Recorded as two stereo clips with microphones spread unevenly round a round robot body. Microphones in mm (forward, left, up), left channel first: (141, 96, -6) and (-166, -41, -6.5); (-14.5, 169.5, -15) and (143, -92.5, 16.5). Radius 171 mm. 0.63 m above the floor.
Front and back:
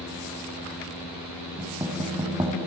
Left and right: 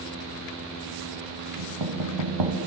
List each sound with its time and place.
1.6 s knocking: 75° right, 3 m